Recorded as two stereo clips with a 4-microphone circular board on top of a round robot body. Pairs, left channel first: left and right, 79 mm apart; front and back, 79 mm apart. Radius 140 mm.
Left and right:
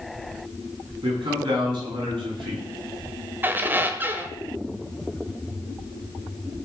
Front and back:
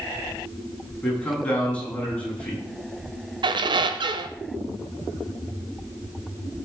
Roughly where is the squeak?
Behind right.